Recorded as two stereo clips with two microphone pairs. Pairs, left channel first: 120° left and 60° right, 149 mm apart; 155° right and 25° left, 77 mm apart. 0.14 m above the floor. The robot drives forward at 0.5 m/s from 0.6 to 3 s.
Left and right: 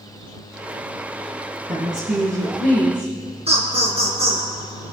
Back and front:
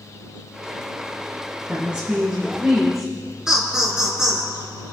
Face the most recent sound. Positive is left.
turn(degrees=-55)